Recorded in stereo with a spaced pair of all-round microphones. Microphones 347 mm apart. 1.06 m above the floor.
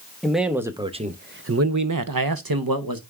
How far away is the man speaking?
About 1.2 m.